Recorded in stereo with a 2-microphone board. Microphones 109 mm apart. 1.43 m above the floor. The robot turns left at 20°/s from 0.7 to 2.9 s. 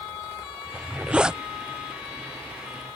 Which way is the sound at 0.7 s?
20° right (ahead or behind).